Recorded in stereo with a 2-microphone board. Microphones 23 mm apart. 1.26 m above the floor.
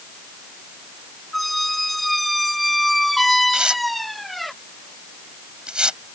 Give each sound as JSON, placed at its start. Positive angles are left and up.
{"t": 1.3, "sound": "a squeak", "side_deg": 5}
{"t": 3.5, "sound": "tearing paper", "side_deg": -40}